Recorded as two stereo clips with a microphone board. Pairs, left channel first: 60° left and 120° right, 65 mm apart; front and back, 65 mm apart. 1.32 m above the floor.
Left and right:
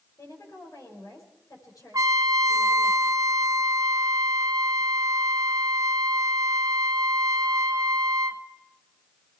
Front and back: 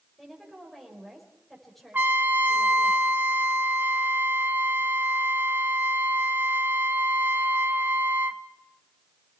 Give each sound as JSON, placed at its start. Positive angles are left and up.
{"t": 0.2, "sound": "a woman speaking", "azimuth_deg": 85, "distance_m": 6.0}
{"t": 1.9, "sound": "a trumpet", "azimuth_deg": -120, "distance_m": 0.8}